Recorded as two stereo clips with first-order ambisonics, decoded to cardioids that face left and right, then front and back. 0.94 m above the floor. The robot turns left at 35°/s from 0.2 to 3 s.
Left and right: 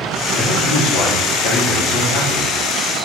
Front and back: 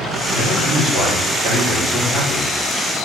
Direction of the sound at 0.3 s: 120° left.